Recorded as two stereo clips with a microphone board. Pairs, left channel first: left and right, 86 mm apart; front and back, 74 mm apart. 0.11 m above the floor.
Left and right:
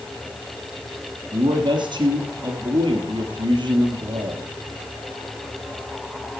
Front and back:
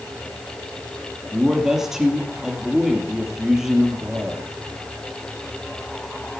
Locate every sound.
1.3 s a man speaking: 95° right, 2.5 m